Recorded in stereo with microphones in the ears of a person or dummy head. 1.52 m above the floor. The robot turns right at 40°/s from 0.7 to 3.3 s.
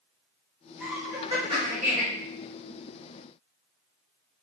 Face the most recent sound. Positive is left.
turn(degrees=-75)